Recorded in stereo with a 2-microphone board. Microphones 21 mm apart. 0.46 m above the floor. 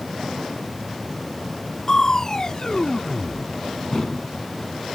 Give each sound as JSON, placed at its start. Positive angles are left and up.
{"t": 1.9, "sound": "crushing", "side_deg": 30}